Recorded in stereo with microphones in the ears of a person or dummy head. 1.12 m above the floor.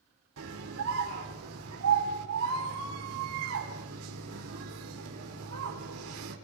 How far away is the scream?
About 3.5 m.